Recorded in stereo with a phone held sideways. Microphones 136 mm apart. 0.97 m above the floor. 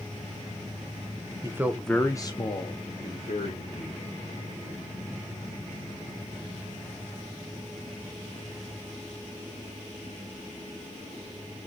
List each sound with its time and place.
1.4 s a man speaking: 25° right (ahead or behind), 0.6 m; by 4.0 s 65° left (ahead or behind), 1.9 m